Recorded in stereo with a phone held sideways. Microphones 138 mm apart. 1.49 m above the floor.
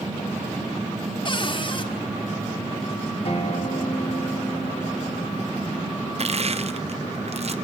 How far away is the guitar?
About 1.9 m.